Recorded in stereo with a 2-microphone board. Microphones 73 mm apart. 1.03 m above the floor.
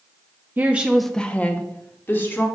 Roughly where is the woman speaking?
Right.